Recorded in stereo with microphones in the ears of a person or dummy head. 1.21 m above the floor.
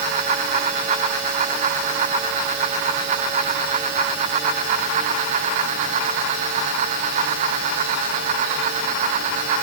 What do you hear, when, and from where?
Only background noise.